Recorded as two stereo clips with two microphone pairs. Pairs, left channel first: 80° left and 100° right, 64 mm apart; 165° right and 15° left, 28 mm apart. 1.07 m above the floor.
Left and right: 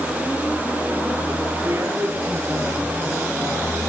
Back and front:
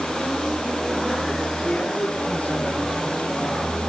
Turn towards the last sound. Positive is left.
turn(degrees=-155)